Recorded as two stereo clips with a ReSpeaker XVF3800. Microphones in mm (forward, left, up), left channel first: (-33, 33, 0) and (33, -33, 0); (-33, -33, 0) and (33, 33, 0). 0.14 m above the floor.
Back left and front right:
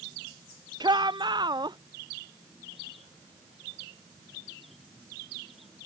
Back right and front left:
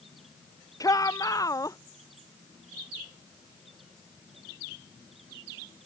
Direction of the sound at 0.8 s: 85° right.